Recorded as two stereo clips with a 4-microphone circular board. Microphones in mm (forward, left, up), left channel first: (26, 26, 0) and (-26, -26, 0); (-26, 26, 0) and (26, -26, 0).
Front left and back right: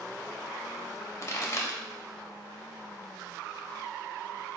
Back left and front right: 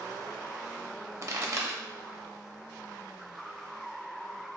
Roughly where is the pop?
Ahead.